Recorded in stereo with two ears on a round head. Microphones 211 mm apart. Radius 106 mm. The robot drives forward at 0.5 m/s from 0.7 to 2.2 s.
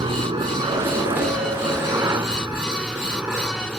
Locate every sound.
0.0 s a helicopter: 20° right (ahead or behind); by 3.8 s 5° right (ahead or behind)